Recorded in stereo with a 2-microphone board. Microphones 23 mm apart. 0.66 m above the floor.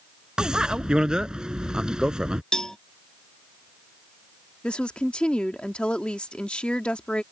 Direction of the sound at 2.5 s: 30° left (ahead or behind).